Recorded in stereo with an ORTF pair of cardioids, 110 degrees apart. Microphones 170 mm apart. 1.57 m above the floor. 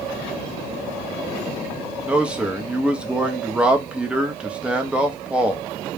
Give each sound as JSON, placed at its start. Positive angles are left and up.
{"t": 2.0, "sound": "a man speaking", "azimuth_deg": -5, "distance_m": 0.6}